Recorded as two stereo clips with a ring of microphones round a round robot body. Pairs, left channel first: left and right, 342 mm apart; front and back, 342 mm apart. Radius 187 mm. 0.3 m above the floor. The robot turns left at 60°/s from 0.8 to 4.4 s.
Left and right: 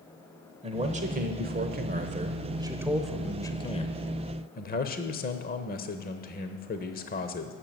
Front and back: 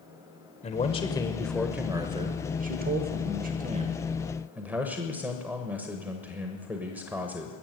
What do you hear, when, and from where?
0.6 s a man speaking: 45° right, 1.0 m; by 7.5 s 100° left, 1.0 m